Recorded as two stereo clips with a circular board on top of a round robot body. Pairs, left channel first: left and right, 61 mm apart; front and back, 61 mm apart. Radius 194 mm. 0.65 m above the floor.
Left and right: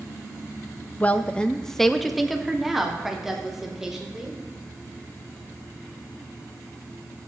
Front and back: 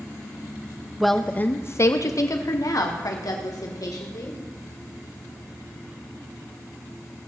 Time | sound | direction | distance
1.0 | a woman speaking | 100° left | 0.8 m